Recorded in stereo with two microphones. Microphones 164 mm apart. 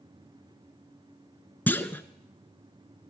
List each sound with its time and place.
1.7 s a clunk: 10° left (ahead or behind), 0.9 m